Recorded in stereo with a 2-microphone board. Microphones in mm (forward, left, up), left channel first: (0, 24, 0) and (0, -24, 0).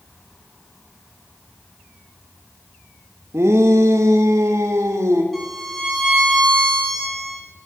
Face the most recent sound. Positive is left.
turn(degrees=0)  # may be behind; listen again after turning